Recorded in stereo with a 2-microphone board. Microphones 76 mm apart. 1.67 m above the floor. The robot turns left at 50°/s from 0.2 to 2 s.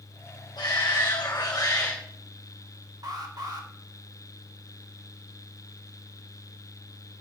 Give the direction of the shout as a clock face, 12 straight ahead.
9 o'clock.